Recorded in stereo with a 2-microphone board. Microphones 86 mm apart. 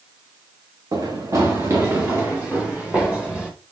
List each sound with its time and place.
0.9 s running footsteps: 45° right (ahead or behind), 1.8 m; by 3.5 s 10° right (ahead or behind), 2.5 m